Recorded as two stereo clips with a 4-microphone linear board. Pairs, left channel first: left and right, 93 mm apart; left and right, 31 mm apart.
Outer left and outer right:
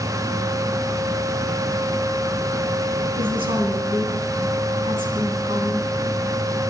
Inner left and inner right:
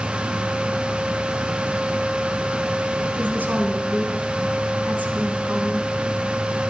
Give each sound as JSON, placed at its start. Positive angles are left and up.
{"t": 3.2, "sound": "a woman speaking", "side_deg": -75, "distance_m": 4.0}